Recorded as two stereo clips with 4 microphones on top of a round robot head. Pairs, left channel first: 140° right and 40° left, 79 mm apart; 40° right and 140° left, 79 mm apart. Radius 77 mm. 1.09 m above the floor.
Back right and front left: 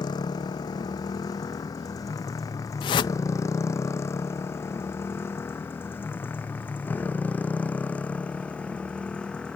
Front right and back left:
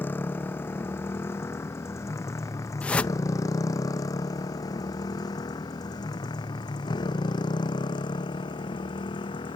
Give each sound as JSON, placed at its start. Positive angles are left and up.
{"t": 0.0, "sound": "a motorcycle", "azimuth_deg": -105}
{"t": 2.8, "sound": "a whoosh", "azimuth_deg": -115}